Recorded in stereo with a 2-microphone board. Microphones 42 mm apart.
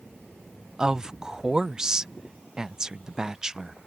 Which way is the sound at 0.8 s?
15° right (ahead or behind).